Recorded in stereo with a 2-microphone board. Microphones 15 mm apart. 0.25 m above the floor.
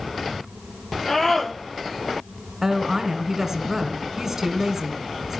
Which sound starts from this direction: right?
A woman speaking, at 2.6 s.